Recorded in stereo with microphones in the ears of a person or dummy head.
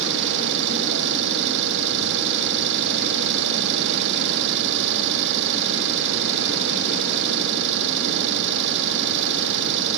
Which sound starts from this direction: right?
An engine running, at 0.0 s.